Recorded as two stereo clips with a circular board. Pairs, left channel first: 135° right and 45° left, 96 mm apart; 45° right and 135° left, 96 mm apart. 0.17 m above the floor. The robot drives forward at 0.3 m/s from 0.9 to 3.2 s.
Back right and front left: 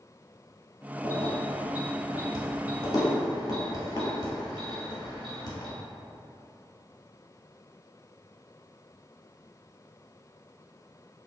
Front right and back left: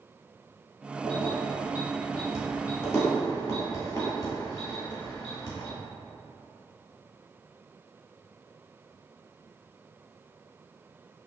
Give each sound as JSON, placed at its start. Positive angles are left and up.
{"t": 1.0, "sound": "keys jangling", "azimuth_deg": -80, "distance_m": 1.8}